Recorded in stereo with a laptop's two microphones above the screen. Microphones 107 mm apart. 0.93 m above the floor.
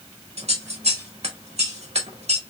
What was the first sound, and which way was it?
Scissors, 85° right.